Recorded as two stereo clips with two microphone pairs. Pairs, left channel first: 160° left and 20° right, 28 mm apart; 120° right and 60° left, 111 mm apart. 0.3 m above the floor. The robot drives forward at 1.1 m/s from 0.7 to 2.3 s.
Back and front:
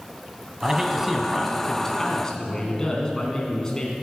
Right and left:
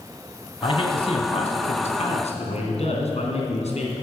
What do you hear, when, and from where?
0.6 s a man speaking: 85° right, 2 m; by 3.9 s 135° right, 2.5 m